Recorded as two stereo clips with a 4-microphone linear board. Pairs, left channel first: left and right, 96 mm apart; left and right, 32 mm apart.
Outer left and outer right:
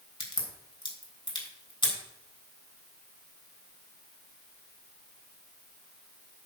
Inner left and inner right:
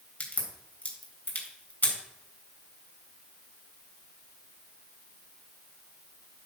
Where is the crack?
65° left (ahead or behind), 3.5 m.